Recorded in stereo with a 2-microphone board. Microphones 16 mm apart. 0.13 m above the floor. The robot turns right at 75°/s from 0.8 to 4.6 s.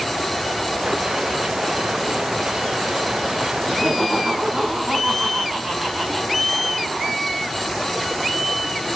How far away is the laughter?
About 8 m.